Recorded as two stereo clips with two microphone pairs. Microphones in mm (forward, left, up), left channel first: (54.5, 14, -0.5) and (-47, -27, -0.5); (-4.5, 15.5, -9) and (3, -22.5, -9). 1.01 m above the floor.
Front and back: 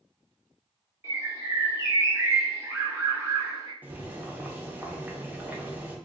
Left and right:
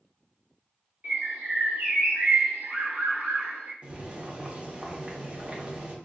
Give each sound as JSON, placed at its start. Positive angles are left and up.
{"t": 1.0, "sound": "a bird", "azimuth_deg": -95, "distance_m": 0.9}
{"t": 3.8, "sound": "boiling", "azimuth_deg": -95, "distance_m": 0.6}